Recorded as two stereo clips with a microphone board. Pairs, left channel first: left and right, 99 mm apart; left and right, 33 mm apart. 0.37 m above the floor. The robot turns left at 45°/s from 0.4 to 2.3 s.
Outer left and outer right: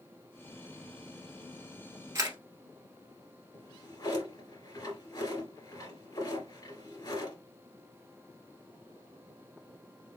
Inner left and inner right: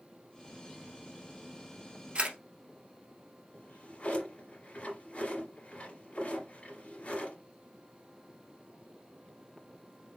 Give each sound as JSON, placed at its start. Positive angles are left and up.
{"t": 2.1, "sound": "a camera shutter", "side_deg": -30, "distance_m": 1.6}
{"t": 3.5, "sound": "a drawer", "side_deg": 40, "distance_m": 2.5}